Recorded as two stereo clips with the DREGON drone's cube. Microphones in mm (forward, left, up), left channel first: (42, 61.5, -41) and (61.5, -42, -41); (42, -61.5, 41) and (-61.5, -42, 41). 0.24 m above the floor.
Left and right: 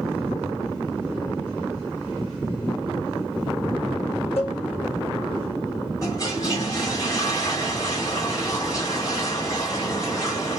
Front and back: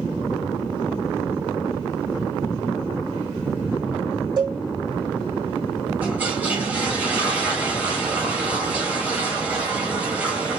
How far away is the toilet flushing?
About 1.8 m.